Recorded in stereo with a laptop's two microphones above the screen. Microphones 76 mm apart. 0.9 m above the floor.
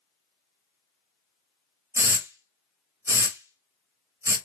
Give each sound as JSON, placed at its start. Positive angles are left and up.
{"t": 1.9, "sound": "a hiss", "side_deg": -35, "distance_m": 0.8}